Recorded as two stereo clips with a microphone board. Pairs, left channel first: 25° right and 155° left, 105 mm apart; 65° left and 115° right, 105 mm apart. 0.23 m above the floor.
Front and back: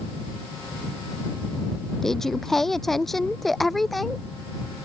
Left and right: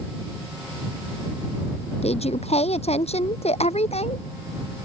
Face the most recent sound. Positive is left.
turn(degrees=65)